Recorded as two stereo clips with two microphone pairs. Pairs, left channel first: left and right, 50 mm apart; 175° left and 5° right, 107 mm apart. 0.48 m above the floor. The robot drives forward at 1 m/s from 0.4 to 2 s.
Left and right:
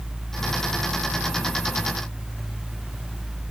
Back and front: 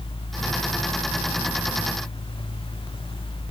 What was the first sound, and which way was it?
Only background noise.